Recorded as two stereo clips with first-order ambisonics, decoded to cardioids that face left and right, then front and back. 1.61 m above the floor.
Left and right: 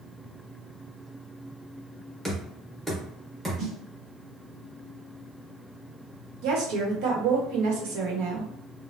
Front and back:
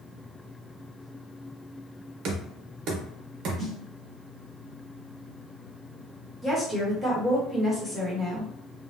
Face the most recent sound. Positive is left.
turn(degrees=-80)